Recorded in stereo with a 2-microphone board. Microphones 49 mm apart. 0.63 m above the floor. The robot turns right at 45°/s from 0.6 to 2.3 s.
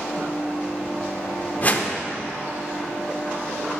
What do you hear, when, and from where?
1.6 s a whoosh: 35° left (ahead or behind), 0.7 m; by 1.9 s 25° left (ahead or behind), 0.7 m